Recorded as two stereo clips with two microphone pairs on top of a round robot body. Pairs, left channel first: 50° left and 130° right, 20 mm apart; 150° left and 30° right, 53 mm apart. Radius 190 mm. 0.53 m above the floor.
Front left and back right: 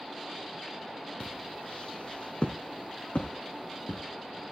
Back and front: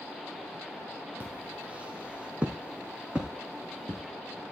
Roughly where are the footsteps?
Ahead left.